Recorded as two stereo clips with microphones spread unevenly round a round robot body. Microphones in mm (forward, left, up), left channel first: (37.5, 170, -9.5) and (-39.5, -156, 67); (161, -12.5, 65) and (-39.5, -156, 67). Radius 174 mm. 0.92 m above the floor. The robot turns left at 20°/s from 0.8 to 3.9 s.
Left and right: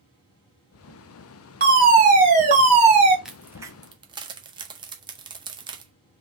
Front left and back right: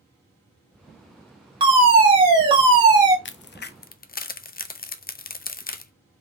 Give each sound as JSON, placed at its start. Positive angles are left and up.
{"t": 1.6, "sound": "a fire alarm", "azimuth_deg": -155, "distance_m": 1.6}
{"t": 3.2, "sound": "a crack", "azimuth_deg": -5, "distance_m": 0.5}